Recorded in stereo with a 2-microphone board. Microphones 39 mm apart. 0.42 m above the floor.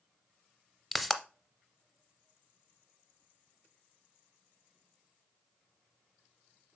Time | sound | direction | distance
0.9 | a pop | 5° left (ahead or behind) | 0.6 m